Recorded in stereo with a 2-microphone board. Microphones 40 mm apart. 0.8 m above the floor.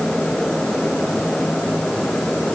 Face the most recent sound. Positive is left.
No sound to turn to.